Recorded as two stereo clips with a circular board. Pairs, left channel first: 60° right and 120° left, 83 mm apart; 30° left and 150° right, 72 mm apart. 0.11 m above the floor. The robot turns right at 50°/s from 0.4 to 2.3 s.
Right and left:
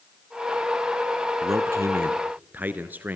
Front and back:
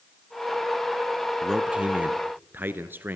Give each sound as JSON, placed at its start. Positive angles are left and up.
{"t": 1.4, "sound": "a man speaking", "azimuth_deg": 125, "distance_m": 1.4}